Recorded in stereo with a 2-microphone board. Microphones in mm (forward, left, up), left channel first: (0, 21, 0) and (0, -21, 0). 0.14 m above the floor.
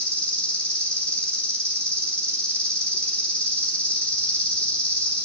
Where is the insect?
25° left (ahead or behind), 2.5 m.